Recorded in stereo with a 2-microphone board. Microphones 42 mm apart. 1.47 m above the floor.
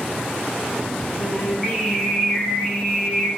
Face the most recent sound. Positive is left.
turn(degrees=10)  # may be behind; listen again after turning